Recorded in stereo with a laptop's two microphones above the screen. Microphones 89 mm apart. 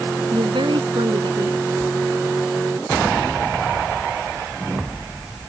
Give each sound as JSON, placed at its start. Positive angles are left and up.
{"t": 0.3, "sound": "a woman speaking", "side_deg": -70}